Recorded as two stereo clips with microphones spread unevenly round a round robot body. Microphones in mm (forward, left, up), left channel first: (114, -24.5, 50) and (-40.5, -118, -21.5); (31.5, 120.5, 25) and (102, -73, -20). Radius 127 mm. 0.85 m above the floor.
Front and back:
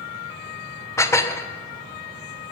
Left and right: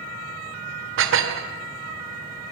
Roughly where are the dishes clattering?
Ahead right.